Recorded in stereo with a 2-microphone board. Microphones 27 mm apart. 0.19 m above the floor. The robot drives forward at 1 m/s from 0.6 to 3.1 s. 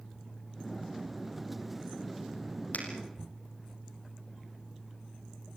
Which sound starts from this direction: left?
A finger snap, at 2.7 s.